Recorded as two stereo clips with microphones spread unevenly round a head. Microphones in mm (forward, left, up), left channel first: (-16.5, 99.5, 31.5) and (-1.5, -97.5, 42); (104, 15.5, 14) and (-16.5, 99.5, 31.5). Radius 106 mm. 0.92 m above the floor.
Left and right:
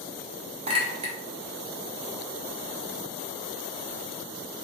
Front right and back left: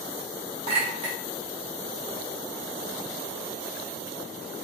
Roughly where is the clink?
Behind right.